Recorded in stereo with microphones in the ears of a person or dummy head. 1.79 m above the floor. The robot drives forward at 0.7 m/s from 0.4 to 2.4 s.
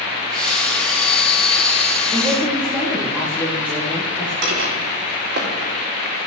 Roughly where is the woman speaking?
Centre.